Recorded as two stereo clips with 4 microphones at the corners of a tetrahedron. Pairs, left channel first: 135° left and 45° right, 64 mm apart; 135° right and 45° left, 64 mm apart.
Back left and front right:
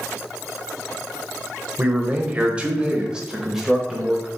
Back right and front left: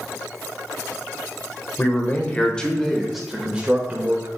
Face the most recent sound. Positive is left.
turn(degrees=45)